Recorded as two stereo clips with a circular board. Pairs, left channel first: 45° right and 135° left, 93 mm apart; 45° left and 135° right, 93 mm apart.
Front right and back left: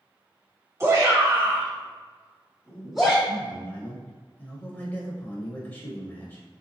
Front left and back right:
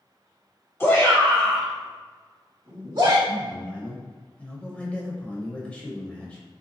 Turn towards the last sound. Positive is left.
turn(degrees=-10)